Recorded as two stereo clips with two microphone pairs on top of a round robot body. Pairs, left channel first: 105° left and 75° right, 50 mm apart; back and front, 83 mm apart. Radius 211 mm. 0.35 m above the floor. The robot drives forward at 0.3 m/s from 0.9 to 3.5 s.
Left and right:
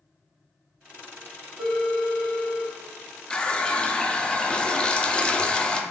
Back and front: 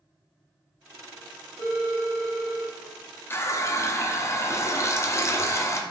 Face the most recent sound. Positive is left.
turn(degrees=180)